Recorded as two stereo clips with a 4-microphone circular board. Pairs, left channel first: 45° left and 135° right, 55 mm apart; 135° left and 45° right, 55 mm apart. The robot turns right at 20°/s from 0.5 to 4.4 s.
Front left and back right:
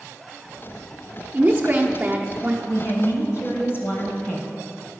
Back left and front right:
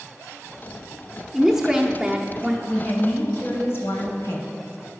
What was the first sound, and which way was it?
A woman speaking, 125° right.